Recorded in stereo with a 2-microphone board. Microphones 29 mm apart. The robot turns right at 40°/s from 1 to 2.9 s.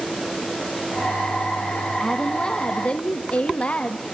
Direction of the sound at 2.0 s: 10° left.